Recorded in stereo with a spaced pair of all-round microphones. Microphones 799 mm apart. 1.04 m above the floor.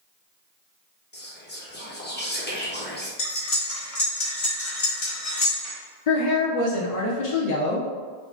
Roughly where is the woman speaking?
Left.